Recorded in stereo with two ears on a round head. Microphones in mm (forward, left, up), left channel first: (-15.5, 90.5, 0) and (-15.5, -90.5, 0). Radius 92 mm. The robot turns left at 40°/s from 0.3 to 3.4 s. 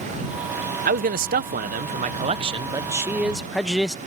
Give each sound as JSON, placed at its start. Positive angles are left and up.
{"t": 0.8, "sound": "a man speaking", "azimuth_deg": -75}